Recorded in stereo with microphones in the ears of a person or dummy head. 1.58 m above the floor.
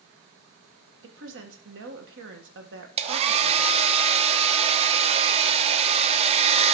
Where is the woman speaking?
75° right (ahead or behind), 1.7 m.